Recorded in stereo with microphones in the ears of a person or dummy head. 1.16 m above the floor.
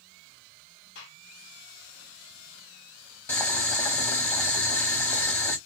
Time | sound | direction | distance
0.9 | a gunshot | 60° left (ahead or behind) | 1.7 m
3.3 | boiling | 15° left (ahead or behind) | 1.0 m